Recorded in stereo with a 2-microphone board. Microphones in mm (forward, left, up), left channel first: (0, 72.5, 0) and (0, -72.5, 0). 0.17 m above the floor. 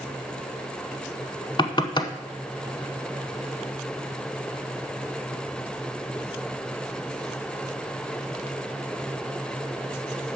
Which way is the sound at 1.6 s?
35° left (ahead or behind).